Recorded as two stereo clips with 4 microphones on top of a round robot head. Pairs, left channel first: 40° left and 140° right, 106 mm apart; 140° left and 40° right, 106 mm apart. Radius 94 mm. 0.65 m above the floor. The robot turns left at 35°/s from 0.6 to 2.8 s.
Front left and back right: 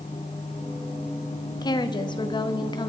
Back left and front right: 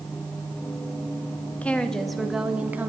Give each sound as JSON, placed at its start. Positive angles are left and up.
{"t": 1.6, "sound": "a woman speaking", "azimuth_deg": 65, "distance_m": 1.2}